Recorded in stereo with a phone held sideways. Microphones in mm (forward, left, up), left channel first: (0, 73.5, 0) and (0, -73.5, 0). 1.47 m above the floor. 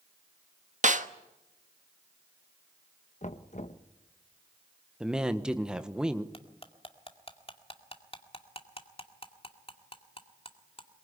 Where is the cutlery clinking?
45° left (ahead or behind), 2 m.